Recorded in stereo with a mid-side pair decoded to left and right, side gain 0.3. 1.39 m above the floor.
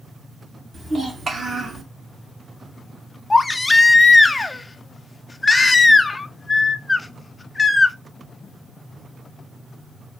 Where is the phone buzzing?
No phone buzzing in this recording.